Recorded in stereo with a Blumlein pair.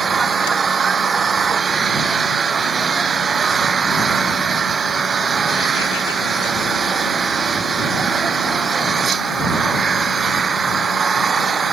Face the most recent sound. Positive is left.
turn(degrees=-20)